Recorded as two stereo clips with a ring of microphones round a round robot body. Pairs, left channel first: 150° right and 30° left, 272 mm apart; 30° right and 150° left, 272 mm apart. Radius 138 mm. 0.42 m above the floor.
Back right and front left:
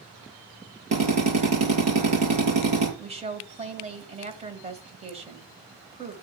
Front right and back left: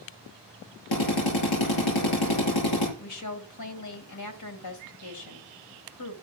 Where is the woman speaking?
35° right, 2.5 m.